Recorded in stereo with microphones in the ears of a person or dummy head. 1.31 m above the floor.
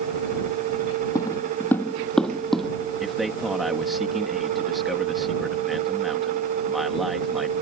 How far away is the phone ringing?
No phone ringing in this recording.